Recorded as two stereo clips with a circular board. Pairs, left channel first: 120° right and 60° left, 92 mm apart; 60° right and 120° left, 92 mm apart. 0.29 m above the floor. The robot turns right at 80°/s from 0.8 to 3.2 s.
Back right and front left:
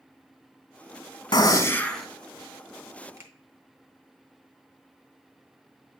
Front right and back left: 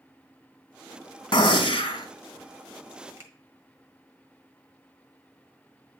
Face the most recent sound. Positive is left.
turn(degrees=85)